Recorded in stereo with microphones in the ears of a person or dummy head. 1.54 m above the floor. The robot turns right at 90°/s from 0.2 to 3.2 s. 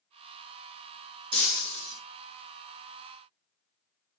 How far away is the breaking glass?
About 4.5 m.